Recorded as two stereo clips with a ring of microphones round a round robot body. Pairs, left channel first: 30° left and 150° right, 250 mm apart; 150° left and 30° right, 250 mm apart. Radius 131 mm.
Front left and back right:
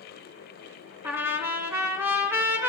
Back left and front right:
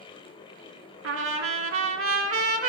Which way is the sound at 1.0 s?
70° right.